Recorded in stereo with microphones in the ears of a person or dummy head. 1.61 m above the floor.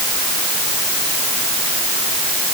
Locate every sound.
Only background noise.